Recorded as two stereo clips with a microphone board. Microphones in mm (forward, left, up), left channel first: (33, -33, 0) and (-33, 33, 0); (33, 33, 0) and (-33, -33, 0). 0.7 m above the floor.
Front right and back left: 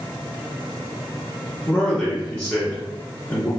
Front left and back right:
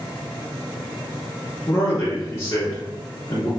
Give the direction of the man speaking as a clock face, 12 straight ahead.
12 o'clock.